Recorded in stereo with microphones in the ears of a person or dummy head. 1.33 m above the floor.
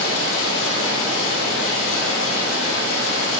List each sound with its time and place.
0.0 s running water: 70° left (ahead or behind), 1.9 m